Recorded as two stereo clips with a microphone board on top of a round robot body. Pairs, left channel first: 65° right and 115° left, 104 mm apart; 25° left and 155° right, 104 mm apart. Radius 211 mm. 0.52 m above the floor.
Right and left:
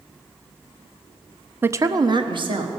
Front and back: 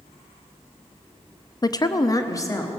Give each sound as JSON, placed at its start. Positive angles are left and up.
{"t": 1.6, "sound": "a woman speaking", "azimuth_deg": 50, "distance_m": 0.7}